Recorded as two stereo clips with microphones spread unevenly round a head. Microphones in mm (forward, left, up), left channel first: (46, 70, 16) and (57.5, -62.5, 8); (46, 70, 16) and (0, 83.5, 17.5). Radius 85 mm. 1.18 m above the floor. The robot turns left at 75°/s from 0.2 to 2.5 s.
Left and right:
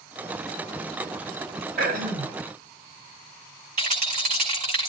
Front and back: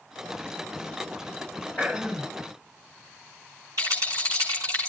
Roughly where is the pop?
I don't hear a pop.